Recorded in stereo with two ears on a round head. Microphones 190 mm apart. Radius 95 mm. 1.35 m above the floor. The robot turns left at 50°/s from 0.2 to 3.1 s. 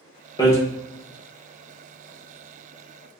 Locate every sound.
0.4 s hammering: 20° left (ahead or behind), 0.6 m; by 0.6 s 15° left (ahead or behind), 0.6 m